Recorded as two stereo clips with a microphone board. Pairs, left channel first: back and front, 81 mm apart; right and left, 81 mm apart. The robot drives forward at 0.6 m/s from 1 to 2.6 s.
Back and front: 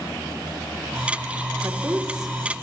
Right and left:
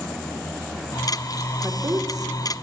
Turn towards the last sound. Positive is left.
turn(degrees=100)